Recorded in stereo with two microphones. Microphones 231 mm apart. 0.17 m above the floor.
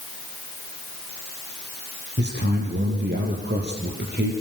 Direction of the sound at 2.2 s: 45° right (ahead or behind).